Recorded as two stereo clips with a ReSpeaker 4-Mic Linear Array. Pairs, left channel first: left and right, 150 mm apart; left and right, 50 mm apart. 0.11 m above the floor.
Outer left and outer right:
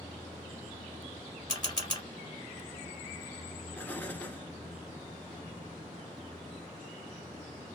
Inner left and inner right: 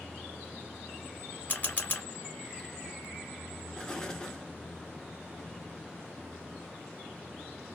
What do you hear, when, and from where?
1.5 s a camera shutter: 30° left (ahead or behind), 1.6 m
3.8 s an explosion: 15° left (ahead or behind), 0.7 m